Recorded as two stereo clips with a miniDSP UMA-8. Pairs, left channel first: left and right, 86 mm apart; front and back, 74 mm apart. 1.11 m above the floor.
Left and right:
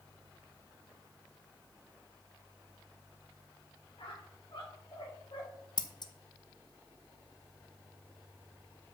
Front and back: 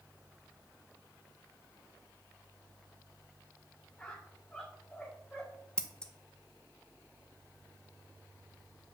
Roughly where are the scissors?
Left.